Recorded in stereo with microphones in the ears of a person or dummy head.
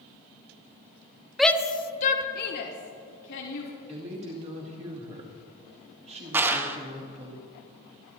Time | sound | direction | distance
1.4 | a shout | centre (ahead or behind) | 0.7 m
3.9 | a woman speaking | 35° right (ahead or behind) | 2 m
6.3 | a clap | 15° right (ahead or behind) | 1.1 m